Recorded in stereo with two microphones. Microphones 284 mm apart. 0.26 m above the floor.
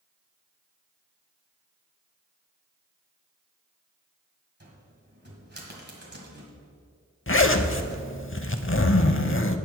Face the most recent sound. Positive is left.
turn(degrees=45)  # may be behind; listen again after turning